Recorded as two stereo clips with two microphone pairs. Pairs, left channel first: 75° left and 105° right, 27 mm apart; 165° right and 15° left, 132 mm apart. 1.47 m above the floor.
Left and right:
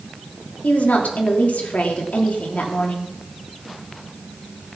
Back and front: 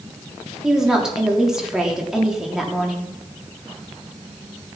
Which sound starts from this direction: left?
A woman speaking, at 0.6 s.